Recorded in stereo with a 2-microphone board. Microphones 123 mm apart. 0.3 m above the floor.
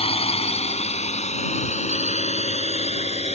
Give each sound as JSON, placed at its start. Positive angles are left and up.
{"t": 0.0, "sound": "a drone", "side_deg": 55}